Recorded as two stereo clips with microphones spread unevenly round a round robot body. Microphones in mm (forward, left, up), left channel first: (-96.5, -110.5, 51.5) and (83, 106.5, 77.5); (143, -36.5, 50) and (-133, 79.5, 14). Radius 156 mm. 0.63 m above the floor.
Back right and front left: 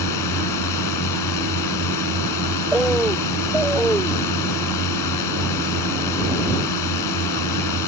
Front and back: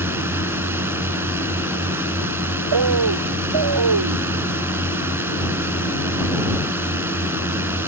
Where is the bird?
140° left.